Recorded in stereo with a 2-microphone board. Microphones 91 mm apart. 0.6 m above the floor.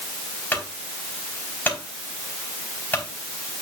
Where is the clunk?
20° left (ahead or behind), 4 m.